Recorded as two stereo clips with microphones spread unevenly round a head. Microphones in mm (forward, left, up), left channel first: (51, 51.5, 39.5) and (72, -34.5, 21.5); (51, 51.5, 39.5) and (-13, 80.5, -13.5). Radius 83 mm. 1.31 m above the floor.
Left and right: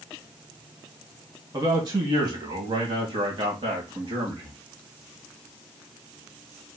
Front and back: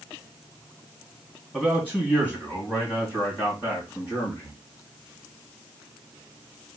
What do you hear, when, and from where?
1.5 s a man speaking: 120° right, 1.2 m; by 4.6 s 100° right, 2.5 m